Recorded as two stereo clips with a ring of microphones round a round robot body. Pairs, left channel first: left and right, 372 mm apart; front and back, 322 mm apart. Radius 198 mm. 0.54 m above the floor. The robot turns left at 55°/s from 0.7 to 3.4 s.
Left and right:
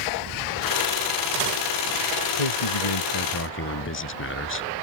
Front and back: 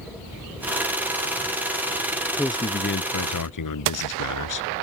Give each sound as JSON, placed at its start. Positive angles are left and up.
{"t": 2.3, "sound": "a man speaking", "azimuth_deg": 90}